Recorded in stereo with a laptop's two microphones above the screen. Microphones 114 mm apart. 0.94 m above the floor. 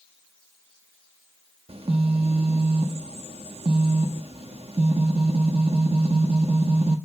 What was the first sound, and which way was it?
A phone buzzing, 55° right (ahead or behind).